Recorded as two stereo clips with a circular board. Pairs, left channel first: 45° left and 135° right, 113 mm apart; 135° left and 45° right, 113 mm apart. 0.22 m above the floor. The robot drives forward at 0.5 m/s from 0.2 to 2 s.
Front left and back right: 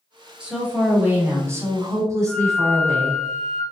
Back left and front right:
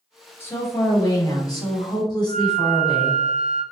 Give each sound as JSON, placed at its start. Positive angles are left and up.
{"t": 0.4, "sound": "a woman speaking", "azimuth_deg": 155, "distance_m": 1.0}
{"t": 2.3, "sound": "a flute", "azimuth_deg": 135, "distance_m": 1.5}